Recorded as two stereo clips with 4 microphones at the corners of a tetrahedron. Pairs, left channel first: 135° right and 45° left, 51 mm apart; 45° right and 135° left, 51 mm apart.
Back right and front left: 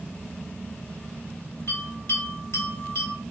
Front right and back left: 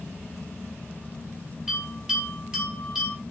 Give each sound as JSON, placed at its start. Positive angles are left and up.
{"t": 1.7, "sound": "a bell", "azimuth_deg": -155, "distance_m": 1.8}